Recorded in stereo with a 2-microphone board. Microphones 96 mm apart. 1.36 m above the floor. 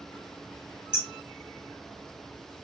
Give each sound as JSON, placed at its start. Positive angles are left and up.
{"t": 0.9, "sound": "hammering", "side_deg": -10, "distance_m": 3.5}